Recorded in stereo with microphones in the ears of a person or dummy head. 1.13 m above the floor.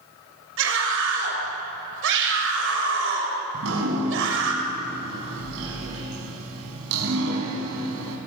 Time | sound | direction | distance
0.6 | a scream | 75° right (ahead or behind) | 6 m
3.5 | dripping | 85° right | 4 m